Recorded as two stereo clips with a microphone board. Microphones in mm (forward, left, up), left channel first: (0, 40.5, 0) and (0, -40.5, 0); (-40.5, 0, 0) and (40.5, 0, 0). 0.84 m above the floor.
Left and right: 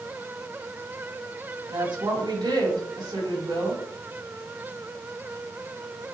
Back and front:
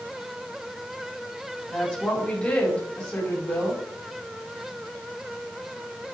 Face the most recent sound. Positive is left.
turn(degrees=-110)